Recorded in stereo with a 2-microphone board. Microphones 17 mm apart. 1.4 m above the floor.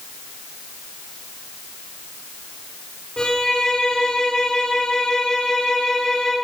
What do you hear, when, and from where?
3.2 s a violin: 50° left (ahead or behind), 3 m